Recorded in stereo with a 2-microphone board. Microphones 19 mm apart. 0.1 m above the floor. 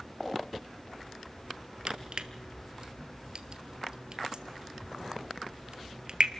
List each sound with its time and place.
1.9 s crushing: 50° right (ahead or behind), 1.6 m